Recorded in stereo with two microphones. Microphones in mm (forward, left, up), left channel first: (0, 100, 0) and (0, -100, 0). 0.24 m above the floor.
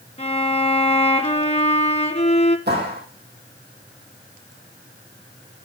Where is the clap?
55° right (ahead or behind), 7 m.